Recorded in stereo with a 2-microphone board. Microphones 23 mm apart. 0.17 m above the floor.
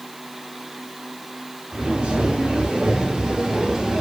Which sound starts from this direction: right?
Footsteps, at 1.7 s.